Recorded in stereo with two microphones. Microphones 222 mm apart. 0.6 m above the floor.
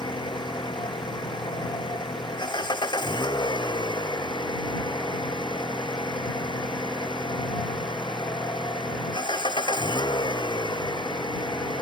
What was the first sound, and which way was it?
An engine running, 20° left (ahead or behind).